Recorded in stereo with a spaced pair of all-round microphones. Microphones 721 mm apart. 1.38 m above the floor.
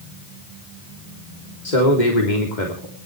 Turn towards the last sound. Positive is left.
turn(degrees=85)